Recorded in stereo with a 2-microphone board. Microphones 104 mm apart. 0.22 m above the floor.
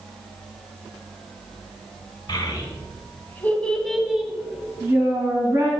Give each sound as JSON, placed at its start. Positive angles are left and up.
{"t": 2.3, "sound": "a child speaking", "side_deg": 45, "distance_m": 1.7}